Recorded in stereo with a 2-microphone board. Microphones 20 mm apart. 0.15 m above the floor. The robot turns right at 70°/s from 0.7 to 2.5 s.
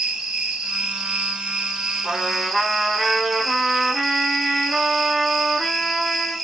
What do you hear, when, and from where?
0.0 s an insect: 135° right, 0.9 m; by 6.5 s 10° right, 0.9 m
2.0 s a trumpet: 70° right, 1.1 m; by 6.3 s 40° right, 1.1 m